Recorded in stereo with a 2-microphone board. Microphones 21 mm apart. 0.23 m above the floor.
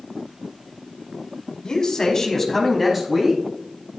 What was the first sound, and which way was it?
A man speaking, 40° left (ahead or behind).